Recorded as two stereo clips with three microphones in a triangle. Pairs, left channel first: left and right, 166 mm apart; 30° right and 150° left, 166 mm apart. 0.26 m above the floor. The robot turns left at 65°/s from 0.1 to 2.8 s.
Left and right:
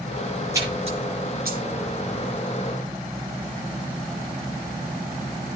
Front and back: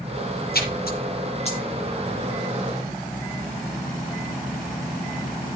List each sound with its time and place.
0.5 s a splash: 20° right, 7 m; by 1.6 s 85° right, 7 m